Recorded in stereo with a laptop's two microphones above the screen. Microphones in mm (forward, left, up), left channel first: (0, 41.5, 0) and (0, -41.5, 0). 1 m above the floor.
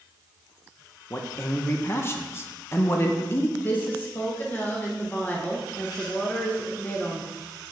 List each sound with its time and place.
1.1 s a man speaking: 30° left (ahead or behind), 0.7 m
3.6 s a woman speaking: 20° left (ahead or behind), 0.8 m